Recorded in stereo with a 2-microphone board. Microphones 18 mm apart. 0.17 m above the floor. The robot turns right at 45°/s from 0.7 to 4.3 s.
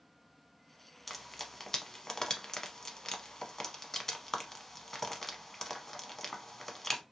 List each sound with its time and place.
1.1 s frying: centre (ahead or behind), 0.6 m; by 7.0 s 20° left (ahead or behind), 0.6 m